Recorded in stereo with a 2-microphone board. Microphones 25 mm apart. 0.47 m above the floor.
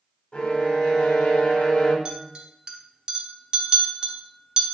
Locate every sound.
0.3 s a violin: 55° left (ahead or behind), 0.8 m
2.0 s a clink: 30° right (ahead or behind), 0.8 m